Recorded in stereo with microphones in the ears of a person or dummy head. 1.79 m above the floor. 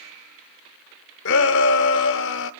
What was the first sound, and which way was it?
A shout, 65° left (ahead or behind).